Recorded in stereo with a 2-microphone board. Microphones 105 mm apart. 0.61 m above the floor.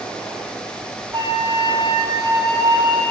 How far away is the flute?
About 2 m.